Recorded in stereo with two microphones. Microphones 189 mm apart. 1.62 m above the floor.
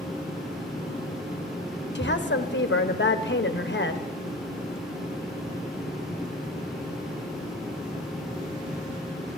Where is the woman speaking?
70° left (ahead or behind), 0.9 m.